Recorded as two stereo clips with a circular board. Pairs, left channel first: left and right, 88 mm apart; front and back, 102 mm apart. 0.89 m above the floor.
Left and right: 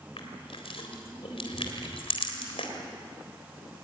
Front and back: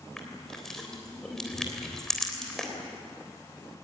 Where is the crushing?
85° left, 3.5 m.